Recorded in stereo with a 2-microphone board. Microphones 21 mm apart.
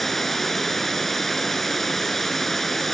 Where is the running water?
10° left (ahead or behind), 1.7 m.